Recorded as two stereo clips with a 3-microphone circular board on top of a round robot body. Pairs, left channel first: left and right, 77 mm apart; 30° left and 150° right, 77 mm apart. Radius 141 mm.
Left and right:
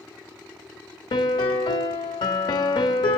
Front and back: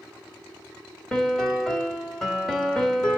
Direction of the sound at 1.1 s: 115° left.